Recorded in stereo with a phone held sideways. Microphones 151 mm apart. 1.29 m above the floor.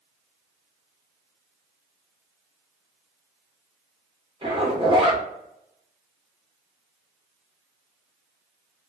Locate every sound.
4.4 s a zipper: 30° right (ahead or behind), 0.8 m